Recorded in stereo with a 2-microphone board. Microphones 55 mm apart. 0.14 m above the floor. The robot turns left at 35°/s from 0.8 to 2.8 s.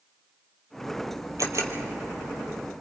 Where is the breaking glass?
I don't hear breaking glass.